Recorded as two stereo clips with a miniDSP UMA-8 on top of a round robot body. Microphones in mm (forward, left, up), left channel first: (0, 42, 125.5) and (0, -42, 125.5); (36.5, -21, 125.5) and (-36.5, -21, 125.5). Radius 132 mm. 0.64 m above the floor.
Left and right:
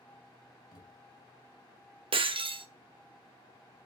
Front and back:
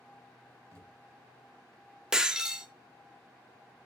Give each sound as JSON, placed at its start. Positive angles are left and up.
{"t": 0.7, "sound": "a thud", "azimuth_deg": 130, "distance_m": 6.0}
{"t": 2.1, "sound": "breaking glass", "azimuth_deg": -100, "distance_m": 1.7}